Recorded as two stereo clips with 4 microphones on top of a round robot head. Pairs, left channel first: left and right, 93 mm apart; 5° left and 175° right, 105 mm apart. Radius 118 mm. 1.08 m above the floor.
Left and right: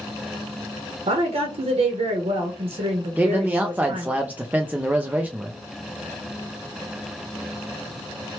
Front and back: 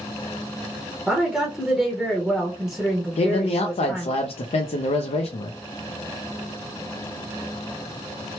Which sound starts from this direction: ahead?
A man speaking, at 3.2 s.